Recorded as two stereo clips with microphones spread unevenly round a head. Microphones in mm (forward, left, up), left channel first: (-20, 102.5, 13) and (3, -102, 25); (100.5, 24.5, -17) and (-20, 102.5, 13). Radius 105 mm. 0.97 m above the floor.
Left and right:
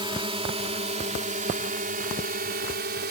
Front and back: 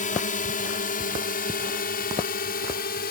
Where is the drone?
15° right; by 3.1 s 40° right.